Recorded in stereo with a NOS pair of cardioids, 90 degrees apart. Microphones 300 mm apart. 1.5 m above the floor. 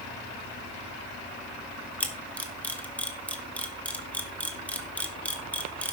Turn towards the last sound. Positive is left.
turn(degrees=5)